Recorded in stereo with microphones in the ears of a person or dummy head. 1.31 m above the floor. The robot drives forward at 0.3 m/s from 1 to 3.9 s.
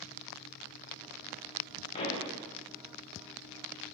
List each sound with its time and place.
1.9 s a pop: 35° left (ahead or behind), 0.6 m; by 2.3 s 30° left (ahead or behind), 0.7 m